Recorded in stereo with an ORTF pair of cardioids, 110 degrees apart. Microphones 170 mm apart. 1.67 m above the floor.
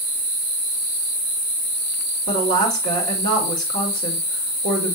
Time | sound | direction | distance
2.3 | a woman speaking | 60° right | 3.5 m